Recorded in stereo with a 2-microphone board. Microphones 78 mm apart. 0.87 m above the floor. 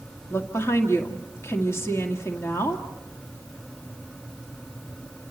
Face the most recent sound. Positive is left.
turn(degrees=35)  # may be behind; listen again after turning